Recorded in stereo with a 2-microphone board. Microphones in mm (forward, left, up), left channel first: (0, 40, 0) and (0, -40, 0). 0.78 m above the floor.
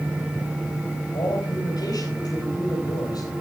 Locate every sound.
1.1 s a man speaking: 60° left (ahead or behind), 4 m